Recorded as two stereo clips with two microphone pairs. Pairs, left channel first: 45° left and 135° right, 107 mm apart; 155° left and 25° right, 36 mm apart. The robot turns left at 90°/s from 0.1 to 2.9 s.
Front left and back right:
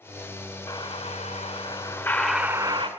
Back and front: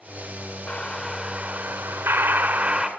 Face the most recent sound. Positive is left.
turn(degrees=-95)